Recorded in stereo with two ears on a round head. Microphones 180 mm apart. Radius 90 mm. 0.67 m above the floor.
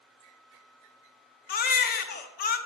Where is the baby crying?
45° left (ahead or behind), 0.6 m.